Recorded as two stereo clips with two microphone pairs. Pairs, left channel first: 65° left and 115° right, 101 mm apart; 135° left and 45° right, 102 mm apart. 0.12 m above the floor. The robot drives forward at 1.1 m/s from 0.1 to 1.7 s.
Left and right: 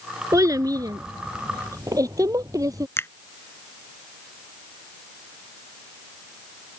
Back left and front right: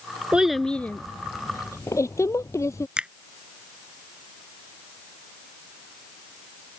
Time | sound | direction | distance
0.3 | a child speaking | 115° right | ?
3.0 | a finger snap | 25° left | ?